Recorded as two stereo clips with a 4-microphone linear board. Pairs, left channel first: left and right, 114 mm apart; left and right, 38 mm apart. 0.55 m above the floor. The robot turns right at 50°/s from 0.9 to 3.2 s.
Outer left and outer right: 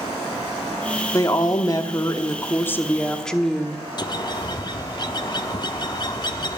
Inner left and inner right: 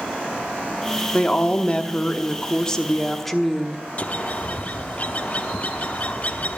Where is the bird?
40° left (ahead or behind), 0.7 m.